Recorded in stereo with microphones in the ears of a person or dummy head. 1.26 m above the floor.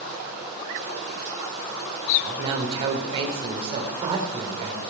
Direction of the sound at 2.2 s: 25° right (ahead or behind).